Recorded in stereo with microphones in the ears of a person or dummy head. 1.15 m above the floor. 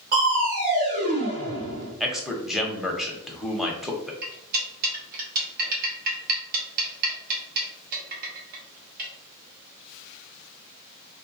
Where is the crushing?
45° right (ahead or behind), 1.8 m.